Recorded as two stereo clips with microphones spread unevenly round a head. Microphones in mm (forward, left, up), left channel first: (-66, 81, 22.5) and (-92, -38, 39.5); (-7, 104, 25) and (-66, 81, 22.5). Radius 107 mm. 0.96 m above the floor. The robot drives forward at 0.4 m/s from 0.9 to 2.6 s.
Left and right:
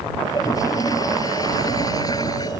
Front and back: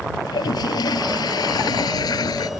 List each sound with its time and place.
0.2 s a toilet flushing: straight ahead